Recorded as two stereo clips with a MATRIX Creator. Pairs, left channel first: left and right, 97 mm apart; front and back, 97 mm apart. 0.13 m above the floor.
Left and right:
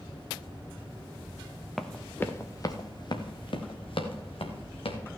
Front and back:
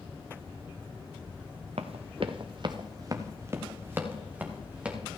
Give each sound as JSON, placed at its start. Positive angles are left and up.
{"t": 1.8, "sound": "running footsteps", "azimuth_deg": 175, "distance_m": 1.1}